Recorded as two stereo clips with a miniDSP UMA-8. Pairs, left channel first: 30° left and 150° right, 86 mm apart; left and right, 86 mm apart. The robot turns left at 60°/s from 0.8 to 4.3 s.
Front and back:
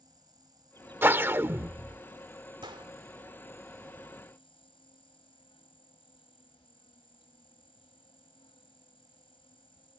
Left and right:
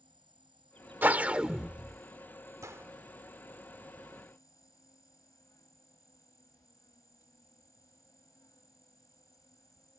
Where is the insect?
110° right; by 10.0 s 40° left.